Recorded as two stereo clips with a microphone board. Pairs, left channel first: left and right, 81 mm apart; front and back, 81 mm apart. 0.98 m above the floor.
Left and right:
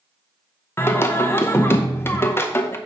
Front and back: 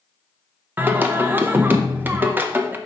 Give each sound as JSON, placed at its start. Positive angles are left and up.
{"t": 0.8, "sound": "singing", "azimuth_deg": 130, "distance_m": 0.6}